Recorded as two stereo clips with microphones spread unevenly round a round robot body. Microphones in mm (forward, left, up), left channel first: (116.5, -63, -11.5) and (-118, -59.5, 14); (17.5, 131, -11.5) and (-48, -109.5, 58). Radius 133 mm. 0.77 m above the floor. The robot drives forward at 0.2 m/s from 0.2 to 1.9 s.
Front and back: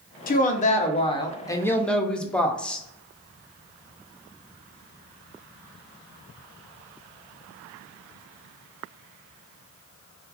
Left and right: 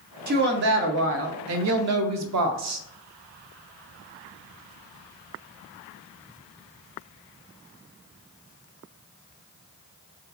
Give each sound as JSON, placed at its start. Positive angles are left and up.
{"t": 0.3, "sound": "a woman speaking", "azimuth_deg": -45, "distance_m": 0.6}